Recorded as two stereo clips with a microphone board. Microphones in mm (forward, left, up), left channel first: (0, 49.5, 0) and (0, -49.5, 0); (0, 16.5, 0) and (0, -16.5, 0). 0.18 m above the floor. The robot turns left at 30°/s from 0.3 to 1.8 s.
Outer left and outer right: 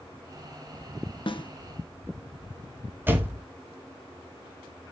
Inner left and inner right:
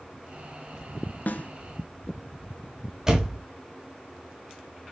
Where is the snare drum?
60° left (ahead or behind), 0.6 m; by 1.5 s 55° left (ahead or behind), 0.6 m.